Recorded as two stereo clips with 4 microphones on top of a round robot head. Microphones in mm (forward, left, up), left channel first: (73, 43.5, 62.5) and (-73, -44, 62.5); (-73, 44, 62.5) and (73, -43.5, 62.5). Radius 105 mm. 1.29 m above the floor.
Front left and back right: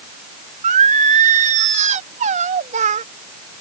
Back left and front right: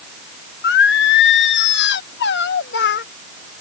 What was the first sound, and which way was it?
Singing, 165° left.